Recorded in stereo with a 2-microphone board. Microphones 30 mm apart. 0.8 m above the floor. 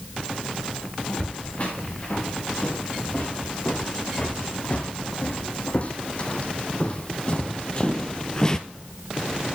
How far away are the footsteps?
About 6 m.